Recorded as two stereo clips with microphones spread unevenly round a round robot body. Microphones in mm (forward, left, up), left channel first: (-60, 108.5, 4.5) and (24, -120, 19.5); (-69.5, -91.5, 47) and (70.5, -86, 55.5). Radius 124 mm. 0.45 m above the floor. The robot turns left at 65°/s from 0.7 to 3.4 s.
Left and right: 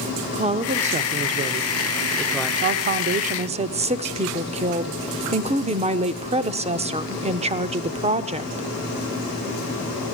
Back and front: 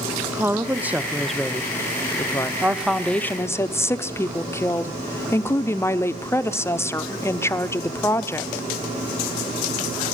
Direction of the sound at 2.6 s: 70° right.